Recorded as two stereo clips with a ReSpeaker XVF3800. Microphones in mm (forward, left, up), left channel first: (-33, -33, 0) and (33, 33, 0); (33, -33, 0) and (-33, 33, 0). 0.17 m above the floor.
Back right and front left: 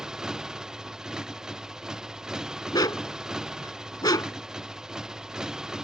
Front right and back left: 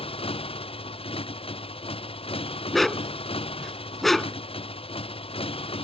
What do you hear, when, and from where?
0.0 s a motorcycle: 40° right
2.7 s a dog barking: 130° right